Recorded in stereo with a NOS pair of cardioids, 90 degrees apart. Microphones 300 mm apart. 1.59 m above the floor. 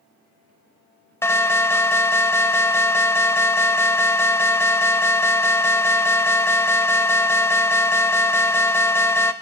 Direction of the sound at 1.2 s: 10° left.